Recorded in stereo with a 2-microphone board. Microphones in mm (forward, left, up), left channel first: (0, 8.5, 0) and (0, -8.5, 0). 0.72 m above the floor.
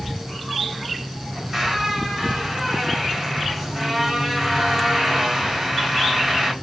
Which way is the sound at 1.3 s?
20° right (ahead or behind).